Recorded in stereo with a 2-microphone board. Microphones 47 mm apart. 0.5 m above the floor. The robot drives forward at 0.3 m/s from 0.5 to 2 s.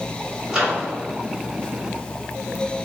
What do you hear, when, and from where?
0.5 s a microwave: 15° right (ahead or behind), 1.6 m; by 0.8 s 10° right (ahead or behind), 1.6 m